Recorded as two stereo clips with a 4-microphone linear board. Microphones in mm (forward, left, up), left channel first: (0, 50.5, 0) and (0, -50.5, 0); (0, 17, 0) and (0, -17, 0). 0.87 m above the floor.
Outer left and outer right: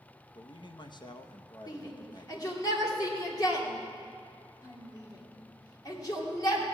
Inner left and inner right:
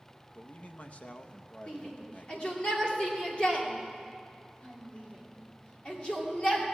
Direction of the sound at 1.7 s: 35° left (ahead or behind).